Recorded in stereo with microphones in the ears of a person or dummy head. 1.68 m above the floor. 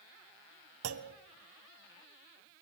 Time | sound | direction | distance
0.8 | a clunk | 85° right | 1.4 m